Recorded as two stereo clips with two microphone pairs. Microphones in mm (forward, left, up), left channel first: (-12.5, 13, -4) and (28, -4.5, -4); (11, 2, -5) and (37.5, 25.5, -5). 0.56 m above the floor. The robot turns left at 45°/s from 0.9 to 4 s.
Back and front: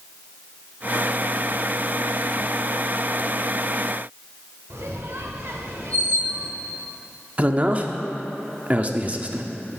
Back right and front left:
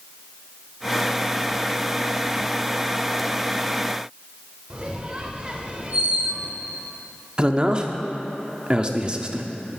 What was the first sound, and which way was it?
A squeak, 20° right.